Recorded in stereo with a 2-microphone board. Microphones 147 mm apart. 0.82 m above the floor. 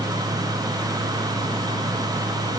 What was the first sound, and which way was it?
Only background noise.